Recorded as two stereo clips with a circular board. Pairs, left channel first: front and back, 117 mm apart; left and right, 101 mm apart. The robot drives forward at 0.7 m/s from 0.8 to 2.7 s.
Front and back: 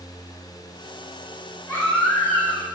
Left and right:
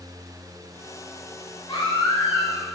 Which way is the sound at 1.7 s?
65° left.